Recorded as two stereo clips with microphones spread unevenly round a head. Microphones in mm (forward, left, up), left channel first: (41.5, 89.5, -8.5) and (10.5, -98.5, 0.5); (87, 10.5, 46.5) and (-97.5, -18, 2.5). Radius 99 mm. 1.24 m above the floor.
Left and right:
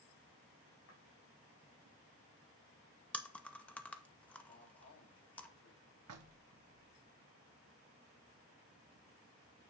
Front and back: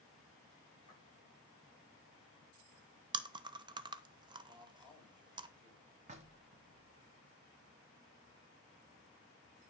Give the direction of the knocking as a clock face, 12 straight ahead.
4 o'clock.